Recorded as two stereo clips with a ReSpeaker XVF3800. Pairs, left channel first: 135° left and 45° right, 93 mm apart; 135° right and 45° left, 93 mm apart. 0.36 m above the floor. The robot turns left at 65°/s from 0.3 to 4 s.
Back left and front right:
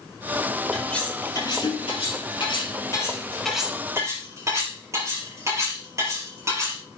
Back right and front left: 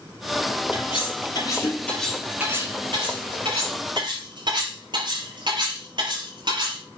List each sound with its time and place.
0.7 s cutlery clinking: 135° right, 5 m; by 6.8 s 10° left, 5 m